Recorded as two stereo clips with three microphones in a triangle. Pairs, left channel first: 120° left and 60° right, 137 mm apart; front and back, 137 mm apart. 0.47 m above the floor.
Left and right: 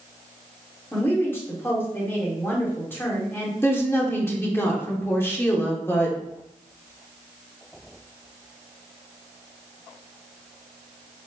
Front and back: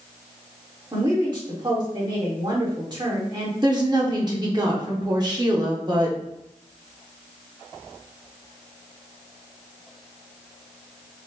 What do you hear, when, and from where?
0.9 s a woman speaking: straight behind, 1.4 m
3.6 s a woman speaking: 175° left, 1.0 m